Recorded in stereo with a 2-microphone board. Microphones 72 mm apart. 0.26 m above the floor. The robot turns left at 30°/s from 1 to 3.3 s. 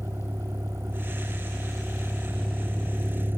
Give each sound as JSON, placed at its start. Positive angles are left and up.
{"t": 0.0, "sound": "a vehicle", "side_deg": -40}